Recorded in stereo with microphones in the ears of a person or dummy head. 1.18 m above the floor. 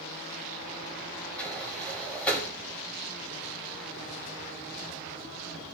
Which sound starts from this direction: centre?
A sliding door, at 1.4 s.